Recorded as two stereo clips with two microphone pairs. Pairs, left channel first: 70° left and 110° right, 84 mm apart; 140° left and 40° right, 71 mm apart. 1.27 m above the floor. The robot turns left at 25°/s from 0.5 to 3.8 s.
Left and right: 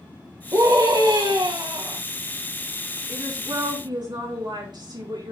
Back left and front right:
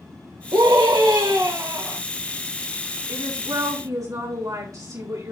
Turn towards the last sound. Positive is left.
turn(degrees=-75)